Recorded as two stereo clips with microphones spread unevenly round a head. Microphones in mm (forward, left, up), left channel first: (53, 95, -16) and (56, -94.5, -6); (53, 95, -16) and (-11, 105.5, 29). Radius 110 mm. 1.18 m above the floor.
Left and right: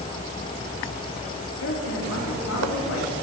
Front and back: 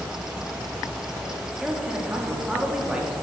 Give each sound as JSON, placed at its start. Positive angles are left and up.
{"t": 1.6, "sound": "a man speaking", "azimuth_deg": 85, "distance_m": 3.0}